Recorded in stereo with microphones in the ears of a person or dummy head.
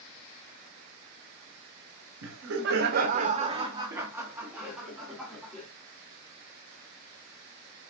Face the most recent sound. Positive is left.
turn(degrees=-5)  # may be behind; listen again after turning